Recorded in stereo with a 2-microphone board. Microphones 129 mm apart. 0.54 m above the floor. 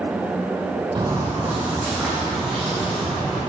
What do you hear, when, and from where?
0.9 s footsteps: 35° right (ahead or behind), 0.9 m; by 3.4 s 5° left (ahead or behind), 3.5 m